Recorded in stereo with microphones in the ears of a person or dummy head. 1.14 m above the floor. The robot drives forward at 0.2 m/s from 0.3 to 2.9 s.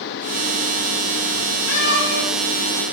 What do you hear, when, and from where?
1.7 s a cat meowing: 65° left (ahead or behind), 1.6 m